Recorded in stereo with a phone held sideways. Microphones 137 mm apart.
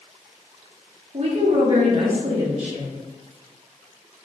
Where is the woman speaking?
55° right (ahead or behind), 1.0 m.